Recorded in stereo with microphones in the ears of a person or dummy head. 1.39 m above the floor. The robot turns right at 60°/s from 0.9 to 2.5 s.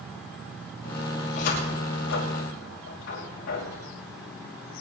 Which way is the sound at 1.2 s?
45° left (ahead or behind).